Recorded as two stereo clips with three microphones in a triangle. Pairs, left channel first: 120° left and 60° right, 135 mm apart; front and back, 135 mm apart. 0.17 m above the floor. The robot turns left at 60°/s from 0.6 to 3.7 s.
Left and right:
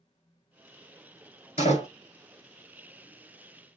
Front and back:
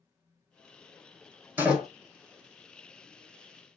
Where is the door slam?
110° left, 1.7 m; by 1.9 s 90° left, 1.7 m.